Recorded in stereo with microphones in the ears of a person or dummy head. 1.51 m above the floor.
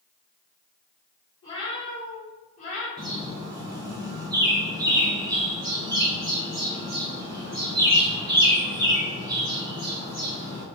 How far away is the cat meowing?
About 1.8 m.